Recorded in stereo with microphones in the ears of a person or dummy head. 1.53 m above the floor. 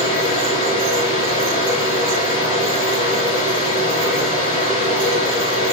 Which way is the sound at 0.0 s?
40° left (ahead or behind).